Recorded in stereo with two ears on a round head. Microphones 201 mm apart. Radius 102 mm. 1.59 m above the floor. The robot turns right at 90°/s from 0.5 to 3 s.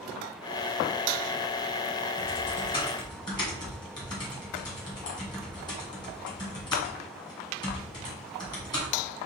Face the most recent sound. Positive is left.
turn(degrees=20)  # may be behind; listen again after turning